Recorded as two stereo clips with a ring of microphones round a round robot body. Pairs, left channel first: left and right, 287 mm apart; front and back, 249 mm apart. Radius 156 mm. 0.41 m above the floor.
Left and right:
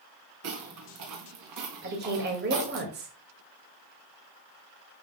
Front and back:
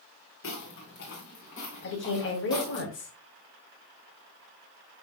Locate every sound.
0.4 s footsteps: 50° right, 3 m; by 2.8 s 80° right, 4.5 m
1.8 s a woman speaking: 40° right, 2 m